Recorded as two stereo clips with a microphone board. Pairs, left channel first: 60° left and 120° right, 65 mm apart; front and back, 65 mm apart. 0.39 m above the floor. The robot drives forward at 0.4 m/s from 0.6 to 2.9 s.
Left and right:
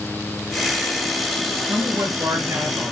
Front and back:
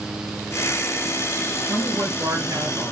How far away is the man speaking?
About 5 m.